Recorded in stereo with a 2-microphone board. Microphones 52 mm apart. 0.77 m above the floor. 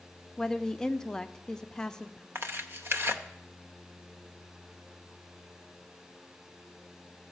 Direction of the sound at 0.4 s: 15° left (ahead or behind).